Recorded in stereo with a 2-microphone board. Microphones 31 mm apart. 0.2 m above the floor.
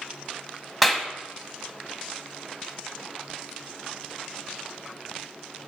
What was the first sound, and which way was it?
A clap, centre (ahead or behind).